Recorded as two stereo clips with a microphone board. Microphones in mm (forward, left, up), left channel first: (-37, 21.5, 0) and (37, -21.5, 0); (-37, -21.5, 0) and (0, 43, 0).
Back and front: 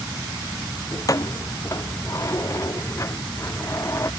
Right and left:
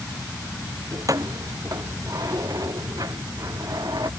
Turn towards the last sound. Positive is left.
turn(degrees=95)